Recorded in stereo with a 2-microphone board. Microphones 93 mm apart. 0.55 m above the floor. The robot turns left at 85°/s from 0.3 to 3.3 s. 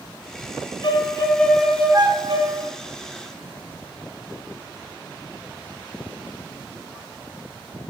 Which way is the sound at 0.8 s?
60° left.